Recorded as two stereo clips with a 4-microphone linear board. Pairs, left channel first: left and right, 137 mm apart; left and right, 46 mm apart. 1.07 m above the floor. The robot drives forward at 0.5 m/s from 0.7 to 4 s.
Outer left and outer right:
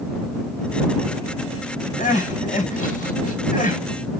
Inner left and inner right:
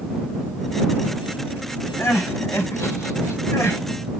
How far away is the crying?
About 2.5 m.